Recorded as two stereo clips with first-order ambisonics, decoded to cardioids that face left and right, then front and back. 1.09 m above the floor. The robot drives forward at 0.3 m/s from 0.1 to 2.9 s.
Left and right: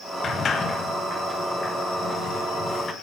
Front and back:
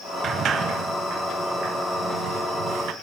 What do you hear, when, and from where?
0.2 s a sliding door: 140° left, 1.0 m; by 2.9 s 165° left, 1.6 m